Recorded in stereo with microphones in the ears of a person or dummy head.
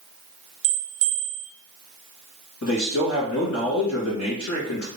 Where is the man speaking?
60° left (ahead or behind), 1.9 m.